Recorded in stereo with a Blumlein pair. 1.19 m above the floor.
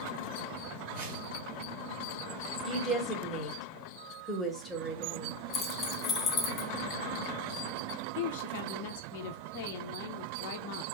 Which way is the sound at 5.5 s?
25° left.